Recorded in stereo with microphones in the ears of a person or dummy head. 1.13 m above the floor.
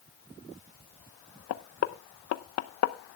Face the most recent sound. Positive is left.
turn(degrees=80)